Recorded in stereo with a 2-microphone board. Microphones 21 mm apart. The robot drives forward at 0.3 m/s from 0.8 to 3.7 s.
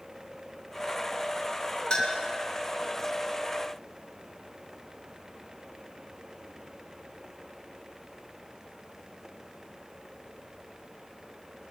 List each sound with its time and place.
1.9 s a clink: 45° left (ahead or behind), 2 m